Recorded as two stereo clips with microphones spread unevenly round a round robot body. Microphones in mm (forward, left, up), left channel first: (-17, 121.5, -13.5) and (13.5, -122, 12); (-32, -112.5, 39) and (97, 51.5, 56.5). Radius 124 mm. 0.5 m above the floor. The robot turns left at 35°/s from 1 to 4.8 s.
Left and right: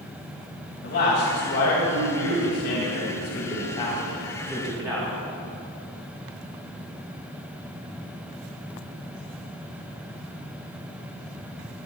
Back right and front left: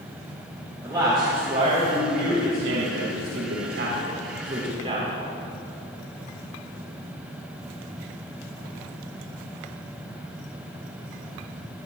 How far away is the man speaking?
About 3 m.